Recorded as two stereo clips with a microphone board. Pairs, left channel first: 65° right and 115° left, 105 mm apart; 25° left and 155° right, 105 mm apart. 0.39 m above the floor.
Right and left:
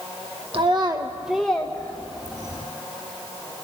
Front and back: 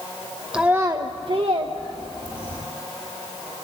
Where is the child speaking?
125° left, 0.6 m; by 2.6 s 125° right, 1.3 m.